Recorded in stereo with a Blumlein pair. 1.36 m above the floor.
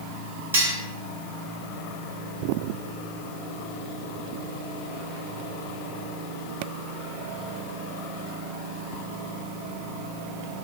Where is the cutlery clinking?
65° right, 1.3 m.